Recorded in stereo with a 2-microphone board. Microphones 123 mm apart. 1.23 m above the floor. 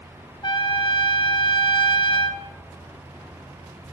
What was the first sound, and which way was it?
A trumpet, 40° left (ahead or behind).